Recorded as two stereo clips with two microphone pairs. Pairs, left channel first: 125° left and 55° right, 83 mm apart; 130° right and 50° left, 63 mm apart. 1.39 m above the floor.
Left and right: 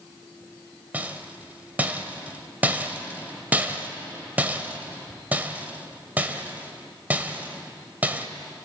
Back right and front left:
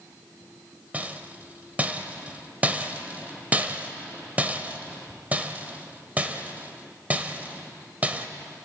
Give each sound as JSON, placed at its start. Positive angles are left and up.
{"t": 0.9, "sound": "a rattle", "azimuth_deg": 0, "distance_m": 1.4}